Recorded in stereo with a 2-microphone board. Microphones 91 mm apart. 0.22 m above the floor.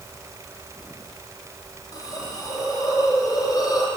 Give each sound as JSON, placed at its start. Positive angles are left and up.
{"t": 1.9, "sound": "a hiss", "side_deg": 45, "distance_m": 4.0}